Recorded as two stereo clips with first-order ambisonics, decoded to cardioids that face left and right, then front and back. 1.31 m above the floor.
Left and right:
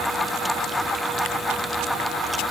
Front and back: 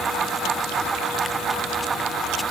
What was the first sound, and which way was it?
Only background noise.